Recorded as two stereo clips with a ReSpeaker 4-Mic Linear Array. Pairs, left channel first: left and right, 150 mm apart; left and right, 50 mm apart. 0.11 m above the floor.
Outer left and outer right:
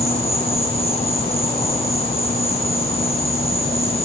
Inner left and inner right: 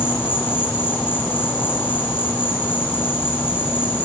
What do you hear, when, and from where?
0.0 s an insect: 40° left (ahead or behind), 2 m